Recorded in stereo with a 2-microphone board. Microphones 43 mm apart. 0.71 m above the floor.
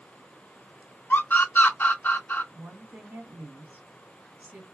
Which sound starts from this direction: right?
A woman speaking, at 2.5 s.